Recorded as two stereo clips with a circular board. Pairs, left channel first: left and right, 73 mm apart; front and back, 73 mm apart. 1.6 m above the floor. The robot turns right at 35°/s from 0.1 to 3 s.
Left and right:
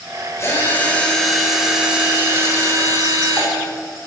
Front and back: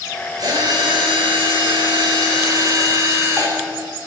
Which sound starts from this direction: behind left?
A drill, at 0.4 s.